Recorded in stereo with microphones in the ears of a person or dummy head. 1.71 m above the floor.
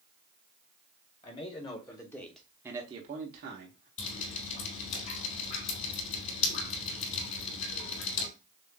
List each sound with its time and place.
1.2 s a man speaking: 30° left (ahead or behind), 1.8 m; by 3.9 s 70° right (ahead or behind), 1.2 m
4.0 s dripping: 40° left (ahead or behind), 3.5 m